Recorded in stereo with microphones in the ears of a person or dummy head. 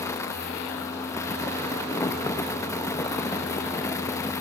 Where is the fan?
15° left (ahead or behind), 0.9 m.